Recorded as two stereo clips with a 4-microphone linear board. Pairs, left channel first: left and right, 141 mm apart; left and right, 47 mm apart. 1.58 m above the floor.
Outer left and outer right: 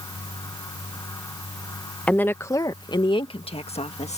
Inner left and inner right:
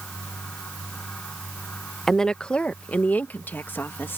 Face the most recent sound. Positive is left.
turn(degrees=50)  # may be behind; listen again after turning